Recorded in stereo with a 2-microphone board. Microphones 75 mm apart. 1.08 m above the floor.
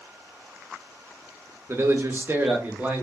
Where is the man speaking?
35° right (ahead or behind), 0.7 m; by 3.0 s 20° right (ahead or behind), 1.0 m.